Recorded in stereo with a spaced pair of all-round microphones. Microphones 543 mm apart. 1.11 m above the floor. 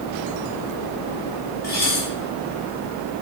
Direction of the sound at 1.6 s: 85° left.